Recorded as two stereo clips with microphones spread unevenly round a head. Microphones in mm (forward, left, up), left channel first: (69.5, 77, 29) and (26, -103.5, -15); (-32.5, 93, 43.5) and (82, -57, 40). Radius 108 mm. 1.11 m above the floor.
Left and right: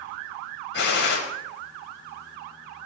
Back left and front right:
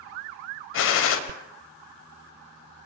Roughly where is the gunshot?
Behind left.